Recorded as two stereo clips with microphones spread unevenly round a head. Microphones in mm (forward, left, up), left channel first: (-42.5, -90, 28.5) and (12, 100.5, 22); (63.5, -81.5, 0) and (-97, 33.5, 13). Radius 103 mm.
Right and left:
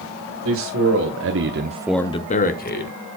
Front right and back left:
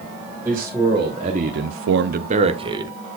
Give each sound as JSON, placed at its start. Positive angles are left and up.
{"t": 0.5, "sound": "a man speaking", "azimuth_deg": 65, "distance_m": 2.0}